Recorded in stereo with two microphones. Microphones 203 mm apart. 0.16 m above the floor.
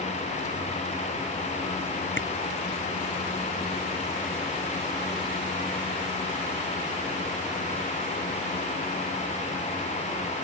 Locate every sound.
2.2 s a camera shutter: 70° left (ahead or behind)